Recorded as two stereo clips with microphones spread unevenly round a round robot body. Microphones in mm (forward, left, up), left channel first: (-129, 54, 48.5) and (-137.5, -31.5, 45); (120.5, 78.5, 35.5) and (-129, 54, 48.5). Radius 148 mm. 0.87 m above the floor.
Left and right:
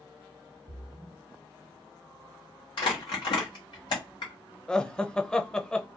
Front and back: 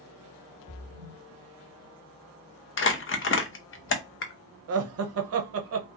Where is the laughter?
165° left, 0.6 m.